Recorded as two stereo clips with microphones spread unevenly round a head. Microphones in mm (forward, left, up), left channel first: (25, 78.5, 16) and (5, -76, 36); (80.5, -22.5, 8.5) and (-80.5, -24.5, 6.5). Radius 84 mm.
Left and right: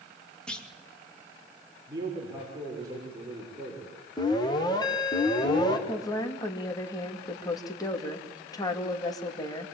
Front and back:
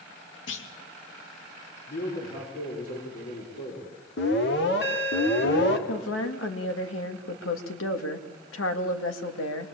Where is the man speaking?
30° right, 6 m.